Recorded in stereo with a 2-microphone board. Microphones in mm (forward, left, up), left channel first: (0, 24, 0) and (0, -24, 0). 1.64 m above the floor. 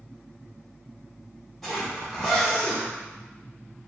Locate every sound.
1.6 s a zipper: centre (ahead or behind), 1.1 m